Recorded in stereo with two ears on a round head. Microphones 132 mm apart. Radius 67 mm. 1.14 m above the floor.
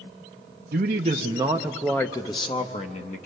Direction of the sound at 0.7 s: 55° right (ahead or behind).